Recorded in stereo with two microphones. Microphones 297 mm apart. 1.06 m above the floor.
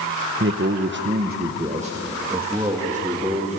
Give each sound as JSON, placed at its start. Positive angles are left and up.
{"t": 0.4, "sound": "a man speaking", "side_deg": -45, "distance_m": 0.9}